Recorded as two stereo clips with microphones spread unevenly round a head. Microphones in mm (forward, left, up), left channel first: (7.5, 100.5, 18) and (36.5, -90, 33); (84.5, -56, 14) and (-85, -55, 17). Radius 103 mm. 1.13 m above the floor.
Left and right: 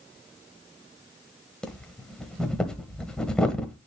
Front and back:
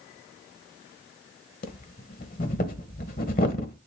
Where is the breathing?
10° left, 1.2 m.